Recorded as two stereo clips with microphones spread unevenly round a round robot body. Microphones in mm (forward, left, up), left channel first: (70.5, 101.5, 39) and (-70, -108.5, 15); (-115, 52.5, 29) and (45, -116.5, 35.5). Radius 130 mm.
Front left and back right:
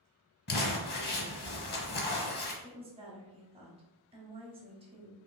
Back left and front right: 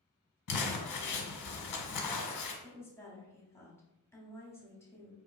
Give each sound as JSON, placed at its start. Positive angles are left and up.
{"t": 0.5, "sound": "crumpling", "azimuth_deg": 110, "distance_m": 0.8}
{"t": 2.6, "sound": "a woman speaking", "azimuth_deg": -160, "distance_m": 1.2}